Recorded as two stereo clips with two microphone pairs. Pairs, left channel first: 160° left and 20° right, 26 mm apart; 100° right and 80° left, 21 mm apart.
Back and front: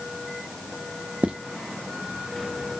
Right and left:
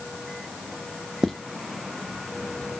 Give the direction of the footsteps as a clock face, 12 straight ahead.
12 o'clock.